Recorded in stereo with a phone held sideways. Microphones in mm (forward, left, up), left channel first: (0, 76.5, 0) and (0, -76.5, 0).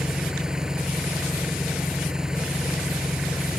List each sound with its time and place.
0.0 s an engine running: 5° right (ahead or behind)